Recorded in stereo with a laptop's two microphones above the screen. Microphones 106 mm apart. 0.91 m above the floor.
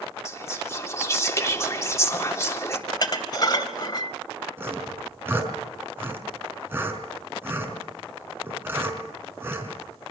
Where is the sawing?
20° right (ahead or behind), 5 m.